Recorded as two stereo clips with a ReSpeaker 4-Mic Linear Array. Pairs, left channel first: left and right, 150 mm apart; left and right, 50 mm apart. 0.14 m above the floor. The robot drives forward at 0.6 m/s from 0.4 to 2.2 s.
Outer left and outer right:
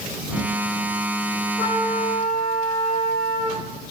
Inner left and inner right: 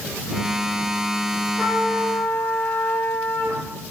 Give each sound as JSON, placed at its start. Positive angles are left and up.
{"t": 1.6, "sound": "a trumpet", "side_deg": 40, "distance_m": 2.5}